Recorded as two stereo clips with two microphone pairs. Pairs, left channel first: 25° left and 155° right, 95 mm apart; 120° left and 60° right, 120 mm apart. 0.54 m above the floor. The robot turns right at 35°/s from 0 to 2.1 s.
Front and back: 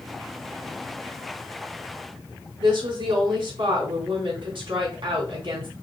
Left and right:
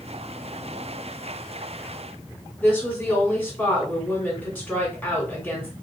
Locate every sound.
2.6 s a woman speaking: 160° right, 3 m